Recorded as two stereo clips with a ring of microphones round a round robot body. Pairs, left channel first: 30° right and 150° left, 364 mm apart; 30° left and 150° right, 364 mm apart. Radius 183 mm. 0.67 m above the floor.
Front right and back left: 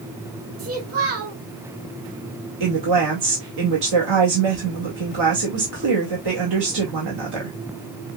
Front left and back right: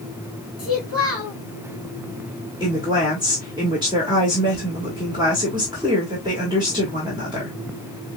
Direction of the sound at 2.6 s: 130° left.